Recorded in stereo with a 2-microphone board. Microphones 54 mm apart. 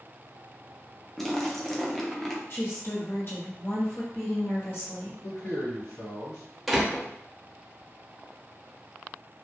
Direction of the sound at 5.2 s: 75° left (ahead or behind).